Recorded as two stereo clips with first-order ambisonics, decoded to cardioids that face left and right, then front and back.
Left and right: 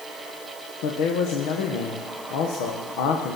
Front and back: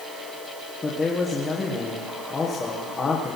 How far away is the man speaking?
About 1.5 m.